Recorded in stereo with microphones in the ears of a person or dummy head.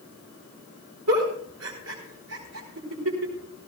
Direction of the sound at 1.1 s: 80° right.